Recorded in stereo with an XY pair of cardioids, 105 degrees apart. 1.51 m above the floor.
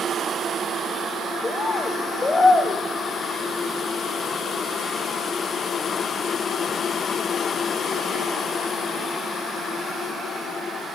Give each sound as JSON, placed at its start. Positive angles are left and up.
{"t": 1.4, "sound": "a bird", "azimuth_deg": 25, "distance_m": 0.9}